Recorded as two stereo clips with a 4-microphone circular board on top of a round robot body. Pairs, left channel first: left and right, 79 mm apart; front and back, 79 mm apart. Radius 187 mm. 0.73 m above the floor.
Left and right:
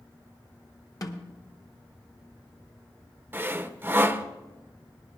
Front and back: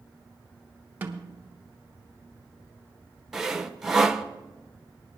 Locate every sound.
1.0 s a snare drum: 120° left, 1.4 m
3.3 s sawing: 105° right, 0.9 m